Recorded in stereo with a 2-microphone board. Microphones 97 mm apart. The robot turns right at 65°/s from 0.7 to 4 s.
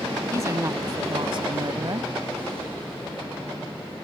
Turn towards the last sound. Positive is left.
turn(degrees=75)